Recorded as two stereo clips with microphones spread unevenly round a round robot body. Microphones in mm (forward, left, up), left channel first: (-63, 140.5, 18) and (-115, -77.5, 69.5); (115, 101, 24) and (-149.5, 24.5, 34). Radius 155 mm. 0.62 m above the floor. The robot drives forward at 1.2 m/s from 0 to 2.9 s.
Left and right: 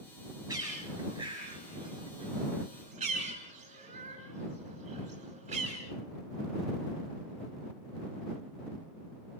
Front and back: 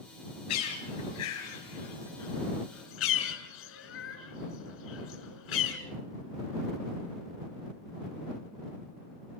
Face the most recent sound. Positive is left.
turn(degrees=-35)